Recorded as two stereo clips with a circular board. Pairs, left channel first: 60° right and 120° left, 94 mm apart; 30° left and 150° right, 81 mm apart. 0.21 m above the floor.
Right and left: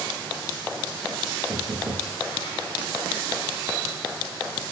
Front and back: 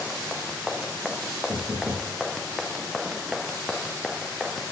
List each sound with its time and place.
1.5 s knocking: 160° left, 9 m